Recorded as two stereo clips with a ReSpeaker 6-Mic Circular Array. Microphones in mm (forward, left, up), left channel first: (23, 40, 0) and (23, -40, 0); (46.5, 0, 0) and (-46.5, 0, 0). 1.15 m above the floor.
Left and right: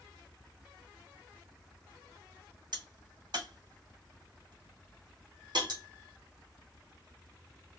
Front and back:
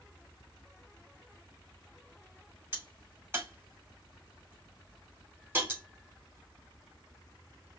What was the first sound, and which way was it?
A crack, 115° right.